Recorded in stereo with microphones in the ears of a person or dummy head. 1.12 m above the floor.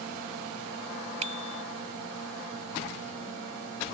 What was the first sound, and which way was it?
A bicycle bell, 35° right (ahead or behind).